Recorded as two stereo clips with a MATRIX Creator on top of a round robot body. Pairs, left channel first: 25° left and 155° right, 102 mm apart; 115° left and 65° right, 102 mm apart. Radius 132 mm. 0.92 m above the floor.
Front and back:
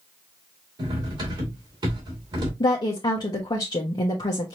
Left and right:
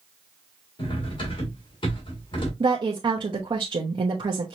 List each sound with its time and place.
0.8 s cutlery clinking: 155° left, 2.5 m
2.6 s a woman speaking: 25° right, 1.0 m